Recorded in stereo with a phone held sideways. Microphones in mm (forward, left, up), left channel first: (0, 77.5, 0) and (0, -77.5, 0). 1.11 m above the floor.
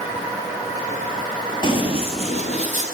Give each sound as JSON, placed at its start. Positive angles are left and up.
{"t": 1.6, "sound": "running footsteps", "side_deg": 30, "distance_m": 1.2}